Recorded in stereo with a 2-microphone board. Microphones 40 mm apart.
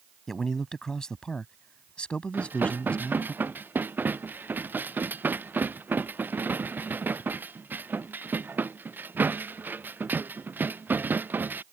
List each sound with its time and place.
0.3 s a man speaking: 10° left (ahead or behind); by 3.3 s 35° left (ahead or behind)
2.3 s dishes clattering: 55° right (ahead or behind)